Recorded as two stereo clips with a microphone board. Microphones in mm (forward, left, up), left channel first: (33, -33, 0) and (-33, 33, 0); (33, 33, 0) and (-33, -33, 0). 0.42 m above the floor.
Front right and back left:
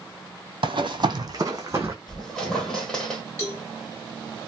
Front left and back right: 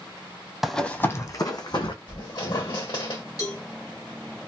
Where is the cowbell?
15° left, 1.9 m.